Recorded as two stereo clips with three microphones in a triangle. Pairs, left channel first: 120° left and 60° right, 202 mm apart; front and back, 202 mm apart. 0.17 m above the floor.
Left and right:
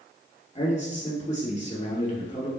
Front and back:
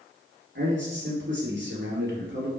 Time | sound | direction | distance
0.6 | a man speaking | 170° left | 3 m